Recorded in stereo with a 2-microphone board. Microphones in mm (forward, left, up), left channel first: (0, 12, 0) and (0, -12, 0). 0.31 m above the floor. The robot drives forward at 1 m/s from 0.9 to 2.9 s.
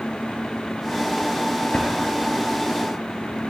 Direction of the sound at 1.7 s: 60° left (ahead or behind).